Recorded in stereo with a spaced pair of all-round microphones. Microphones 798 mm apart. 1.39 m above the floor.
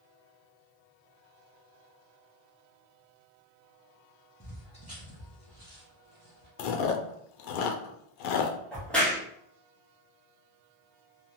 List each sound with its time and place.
4.4 s footsteps: centre (ahead or behind), 1.5 m; by 6.5 s 35° left (ahead or behind), 1.7 m
6.6 s chewing: 75° left (ahead or behind), 0.6 m
8.7 s a crack: centre (ahead or behind), 0.8 m